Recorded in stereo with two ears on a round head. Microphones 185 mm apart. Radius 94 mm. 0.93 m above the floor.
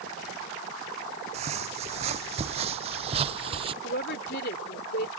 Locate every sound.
1.3 s footsteps: 30° right (ahead or behind); by 3.7 s 25° right (ahead or behind)
3.8 s a woman speaking: 50° left (ahead or behind)